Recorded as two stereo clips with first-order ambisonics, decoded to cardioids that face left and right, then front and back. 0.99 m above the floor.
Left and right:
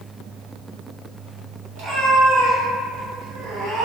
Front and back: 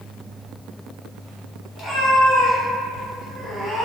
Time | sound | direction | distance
1.8 | a cat meowing | 55° right | 1.5 m